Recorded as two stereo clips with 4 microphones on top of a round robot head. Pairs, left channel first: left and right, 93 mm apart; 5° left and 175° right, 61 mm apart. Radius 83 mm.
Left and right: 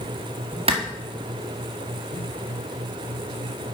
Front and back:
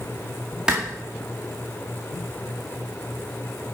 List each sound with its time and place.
0.7 s a clap: 100° right, 1.9 m